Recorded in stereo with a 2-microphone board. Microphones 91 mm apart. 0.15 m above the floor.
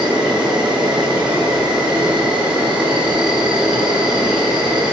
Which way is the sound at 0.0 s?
10° right (ahead or behind).